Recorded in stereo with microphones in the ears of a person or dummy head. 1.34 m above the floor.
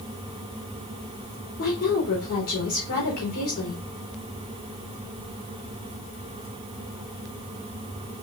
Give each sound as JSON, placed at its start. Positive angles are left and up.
{"t": 1.6, "sound": "a woman speaking", "side_deg": 55, "distance_m": 4.0}